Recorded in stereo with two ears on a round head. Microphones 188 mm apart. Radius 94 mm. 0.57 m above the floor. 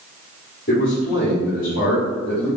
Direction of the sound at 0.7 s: 45° left (ahead or behind).